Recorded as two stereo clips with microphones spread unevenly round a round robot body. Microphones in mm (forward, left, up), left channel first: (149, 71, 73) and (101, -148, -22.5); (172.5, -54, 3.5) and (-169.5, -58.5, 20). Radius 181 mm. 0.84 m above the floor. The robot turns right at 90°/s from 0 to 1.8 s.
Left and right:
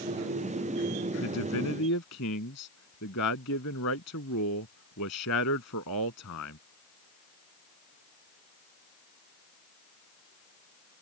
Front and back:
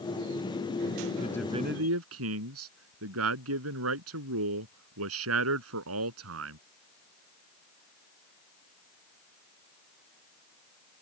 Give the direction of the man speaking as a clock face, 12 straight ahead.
10 o'clock.